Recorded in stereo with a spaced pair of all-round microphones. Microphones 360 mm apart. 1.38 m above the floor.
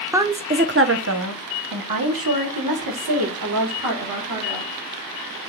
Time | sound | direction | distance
0.1 | a woman speaking | 5° right (ahead or behind) | 0.7 m